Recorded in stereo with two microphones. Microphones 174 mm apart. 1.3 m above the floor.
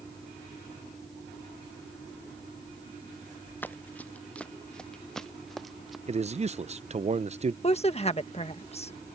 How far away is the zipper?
I don't hear a zipper.